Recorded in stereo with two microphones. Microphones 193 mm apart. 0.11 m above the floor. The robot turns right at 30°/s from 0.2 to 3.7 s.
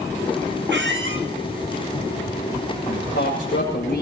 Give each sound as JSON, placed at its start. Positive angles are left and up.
{"t": 0.7, "sound": "a squeak", "side_deg": -65, "distance_m": 1.6}
{"t": 2.9, "sound": "a man speaking", "side_deg": 75, "distance_m": 7.0}